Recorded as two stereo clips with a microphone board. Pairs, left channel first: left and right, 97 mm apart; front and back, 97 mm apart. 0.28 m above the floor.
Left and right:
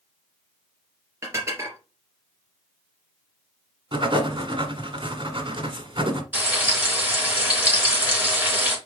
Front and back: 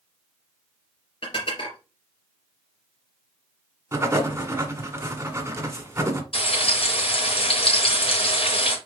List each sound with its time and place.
1.2 s dishes clattering: 30° right, 3 m
3.9 s writing: 120° right, 1.4 m
6.3 s frying: 15° right, 4 m